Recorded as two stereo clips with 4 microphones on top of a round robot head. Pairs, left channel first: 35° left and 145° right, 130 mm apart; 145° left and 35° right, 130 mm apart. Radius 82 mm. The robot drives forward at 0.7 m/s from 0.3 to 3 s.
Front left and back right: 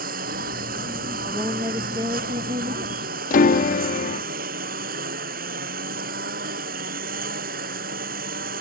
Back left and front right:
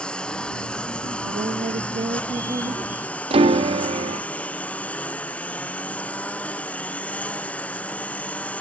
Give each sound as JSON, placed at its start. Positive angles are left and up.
{"t": 0.0, "sound": "a lawn mower", "azimuth_deg": -130}
{"t": 1.2, "sound": "a woman speaking", "azimuth_deg": -70}
{"t": 3.3, "sound": "a piano", "azimuth_deg": 15}